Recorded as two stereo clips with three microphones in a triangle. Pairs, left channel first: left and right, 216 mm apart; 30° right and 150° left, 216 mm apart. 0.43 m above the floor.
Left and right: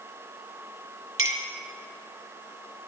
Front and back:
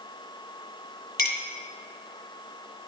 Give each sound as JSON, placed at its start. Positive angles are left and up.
{"t": 1.2, "sound": "a clink", "azimuth_deg": -75, "distance_m": 1.7}